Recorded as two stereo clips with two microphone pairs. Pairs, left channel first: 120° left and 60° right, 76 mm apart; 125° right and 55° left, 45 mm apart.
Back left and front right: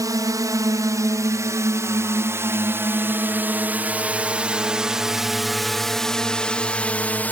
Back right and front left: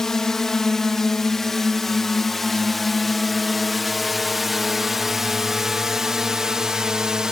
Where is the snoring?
No snoring in this recording.